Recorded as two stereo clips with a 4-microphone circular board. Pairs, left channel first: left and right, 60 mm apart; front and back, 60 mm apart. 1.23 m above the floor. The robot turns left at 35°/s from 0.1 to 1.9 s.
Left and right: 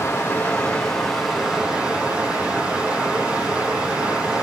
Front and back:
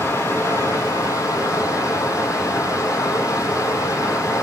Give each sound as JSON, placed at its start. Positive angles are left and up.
{"t": 0.0, "sound": "running water", "azimuth_deg": 40, "distance_m": 2.0}